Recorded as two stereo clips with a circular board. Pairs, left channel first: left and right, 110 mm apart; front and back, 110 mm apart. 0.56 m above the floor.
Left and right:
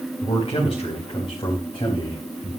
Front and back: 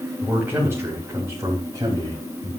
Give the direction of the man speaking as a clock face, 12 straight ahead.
8 o'clock.